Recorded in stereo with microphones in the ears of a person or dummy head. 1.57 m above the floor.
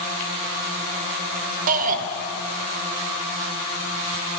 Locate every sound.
1.7 s a shout: 45° right (ahead or behind), 0.7 m